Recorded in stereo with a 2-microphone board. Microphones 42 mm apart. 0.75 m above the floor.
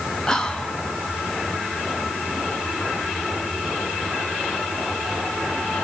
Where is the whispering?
15° left (ahead or behind), 1.1 m.